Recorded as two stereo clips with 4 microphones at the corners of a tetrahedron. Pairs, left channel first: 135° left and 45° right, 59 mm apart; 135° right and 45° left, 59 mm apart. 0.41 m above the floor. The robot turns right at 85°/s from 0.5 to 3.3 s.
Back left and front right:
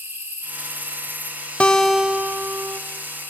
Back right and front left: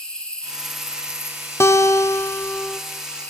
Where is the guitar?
160° right, 0.7 m; by 2.8 s 60° right, 0.7 m.